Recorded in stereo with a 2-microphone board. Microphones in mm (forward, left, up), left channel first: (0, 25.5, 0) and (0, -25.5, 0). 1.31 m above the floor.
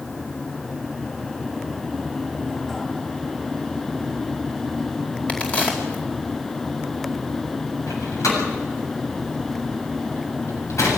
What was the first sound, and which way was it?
A crack, 25° left (ahead or behind).